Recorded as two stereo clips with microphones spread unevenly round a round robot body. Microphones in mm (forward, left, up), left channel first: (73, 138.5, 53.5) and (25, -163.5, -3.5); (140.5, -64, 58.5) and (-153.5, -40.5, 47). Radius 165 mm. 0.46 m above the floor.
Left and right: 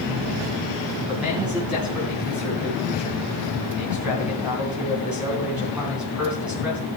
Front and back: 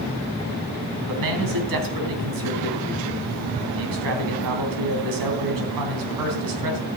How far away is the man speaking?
About 3.5 m.